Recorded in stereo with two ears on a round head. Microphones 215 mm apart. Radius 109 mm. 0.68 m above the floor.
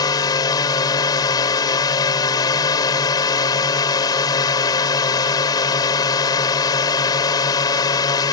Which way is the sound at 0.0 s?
15° left (ahead or behind).